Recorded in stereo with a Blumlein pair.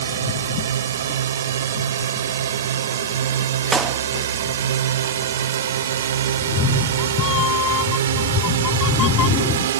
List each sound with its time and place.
0.0 s a drone: 65° right; by 9.8 s 60° right
3.7 s a clap: 15° right
6.4 s a cat meowing: 30° left